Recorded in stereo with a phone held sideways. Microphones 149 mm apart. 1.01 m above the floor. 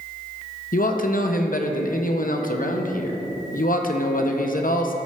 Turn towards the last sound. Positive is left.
turn(degrees=65)  # may be behind; listen again after turning